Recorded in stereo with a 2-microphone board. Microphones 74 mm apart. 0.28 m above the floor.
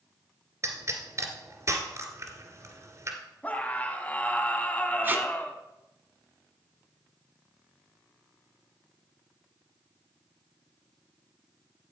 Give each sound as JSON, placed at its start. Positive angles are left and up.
{"t": 0.6, "sound": "a pop", "side_deg": -40, "distance_m": 2.0}
{"t": 3.4, "sound": "a scream", "side_deg": 20, "distance_m": 2.0}
{"t": 5.0, "sound": "tape being pulled", "side_deg": -30, "distance_m": 1.3}